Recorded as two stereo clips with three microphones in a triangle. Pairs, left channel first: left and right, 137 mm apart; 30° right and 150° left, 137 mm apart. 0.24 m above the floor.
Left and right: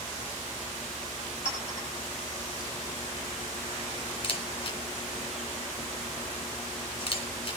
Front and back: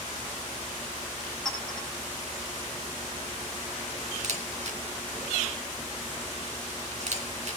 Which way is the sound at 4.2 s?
130° left.